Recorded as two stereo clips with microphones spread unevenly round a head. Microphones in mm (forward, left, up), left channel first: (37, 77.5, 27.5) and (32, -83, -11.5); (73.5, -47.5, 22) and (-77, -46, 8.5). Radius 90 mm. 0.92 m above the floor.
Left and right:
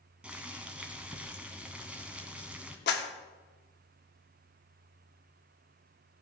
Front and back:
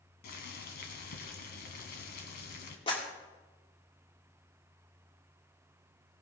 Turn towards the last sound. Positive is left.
turn(degrees=65)